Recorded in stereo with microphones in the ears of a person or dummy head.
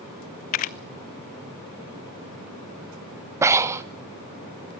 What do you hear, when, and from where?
0.5 s a camera shutter: 40° left (ahead or behind), 0.5 m
3.4 s breathing: 15° right (ahead or behind), 0.6 m